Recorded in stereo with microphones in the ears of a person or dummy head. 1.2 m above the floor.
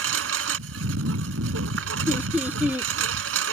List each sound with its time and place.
0.0 s a lawn mower: 75° right (ahead or behind)
2.1 s laughter: 10° right (ahead or behind)